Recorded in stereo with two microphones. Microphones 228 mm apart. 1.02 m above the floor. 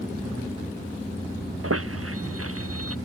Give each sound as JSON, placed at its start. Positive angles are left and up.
{"t": 1.6, "sound": "a squeak", "side_deg": -80}